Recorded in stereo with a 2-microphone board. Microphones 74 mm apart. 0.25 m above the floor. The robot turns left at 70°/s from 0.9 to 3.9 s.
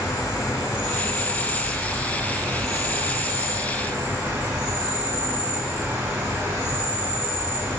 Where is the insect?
65° left, 1.4 m; by 7.8 s 145° right, 1.4 m.